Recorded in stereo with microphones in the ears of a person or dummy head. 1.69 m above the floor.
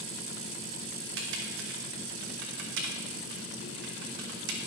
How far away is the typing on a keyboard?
About 1.2 m.